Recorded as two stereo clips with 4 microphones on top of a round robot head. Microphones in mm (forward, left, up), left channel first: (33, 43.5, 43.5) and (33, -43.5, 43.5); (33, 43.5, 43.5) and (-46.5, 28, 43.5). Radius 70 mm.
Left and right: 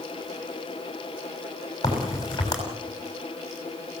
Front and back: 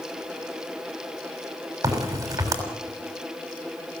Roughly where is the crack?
Behind left.